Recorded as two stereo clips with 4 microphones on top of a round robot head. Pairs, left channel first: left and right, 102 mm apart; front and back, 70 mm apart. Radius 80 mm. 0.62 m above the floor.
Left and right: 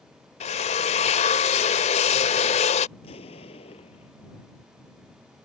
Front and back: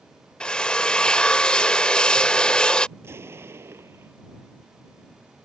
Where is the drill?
80° left.